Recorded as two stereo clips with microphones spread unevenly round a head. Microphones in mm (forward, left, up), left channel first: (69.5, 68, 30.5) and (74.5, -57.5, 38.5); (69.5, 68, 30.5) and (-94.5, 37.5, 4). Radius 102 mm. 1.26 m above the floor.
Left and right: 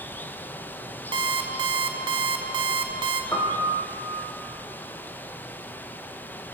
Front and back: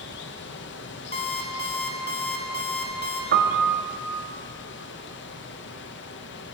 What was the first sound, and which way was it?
Running water, 15° left.